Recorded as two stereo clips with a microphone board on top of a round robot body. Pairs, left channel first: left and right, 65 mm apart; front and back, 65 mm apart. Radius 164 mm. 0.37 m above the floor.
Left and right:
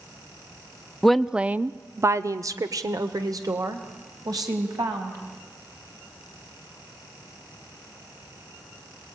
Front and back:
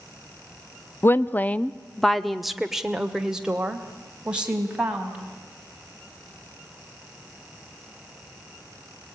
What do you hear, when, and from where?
1.0 s a woman speaking: 10° left, 0.8 m; by 5.2 s 105° right, 3 m